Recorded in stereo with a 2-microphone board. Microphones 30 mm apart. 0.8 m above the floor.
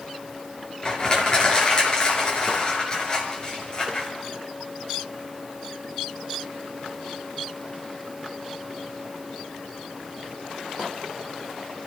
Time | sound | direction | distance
0.8 | crushing | 30° left (ahead or behind) | 5.5 m